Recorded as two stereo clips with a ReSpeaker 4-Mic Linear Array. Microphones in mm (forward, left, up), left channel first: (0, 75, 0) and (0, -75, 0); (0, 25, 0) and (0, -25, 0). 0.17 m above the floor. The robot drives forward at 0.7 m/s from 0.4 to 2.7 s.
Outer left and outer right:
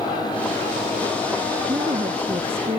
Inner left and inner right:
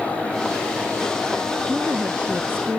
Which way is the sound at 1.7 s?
35° right (ahead or behind).